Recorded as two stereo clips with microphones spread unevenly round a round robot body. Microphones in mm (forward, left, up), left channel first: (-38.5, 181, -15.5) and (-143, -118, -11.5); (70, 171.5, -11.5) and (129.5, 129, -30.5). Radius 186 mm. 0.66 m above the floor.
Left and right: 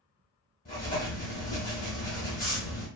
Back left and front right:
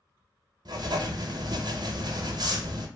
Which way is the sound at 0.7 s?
5° left.